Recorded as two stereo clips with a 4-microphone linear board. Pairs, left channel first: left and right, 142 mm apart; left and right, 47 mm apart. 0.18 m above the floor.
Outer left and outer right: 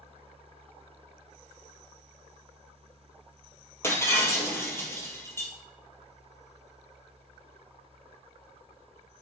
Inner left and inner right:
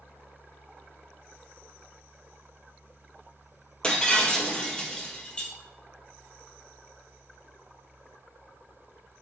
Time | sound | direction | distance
3.8 | breaking glass | 20° left (ahead or behind) | 2 m